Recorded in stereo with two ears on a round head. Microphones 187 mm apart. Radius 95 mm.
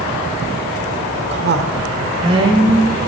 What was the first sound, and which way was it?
A woman speaking, 55° right (ahead or behind).